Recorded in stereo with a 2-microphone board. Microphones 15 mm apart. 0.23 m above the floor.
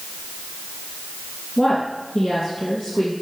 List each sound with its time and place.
1.6 s a woman speaking: 30° left (ahead or behind), 2.5 m; by 3.1 s 45° left (ahead or behind), 3 m